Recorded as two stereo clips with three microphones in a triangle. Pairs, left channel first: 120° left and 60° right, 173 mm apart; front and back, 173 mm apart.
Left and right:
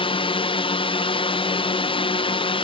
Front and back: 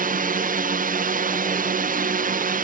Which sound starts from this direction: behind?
A drone, at 0.0 s.